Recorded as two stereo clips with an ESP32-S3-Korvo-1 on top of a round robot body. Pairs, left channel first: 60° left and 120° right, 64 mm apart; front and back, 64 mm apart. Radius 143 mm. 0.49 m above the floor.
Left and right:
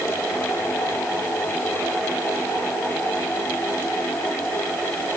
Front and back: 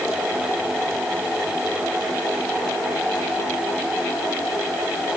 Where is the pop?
I don't hear a pop.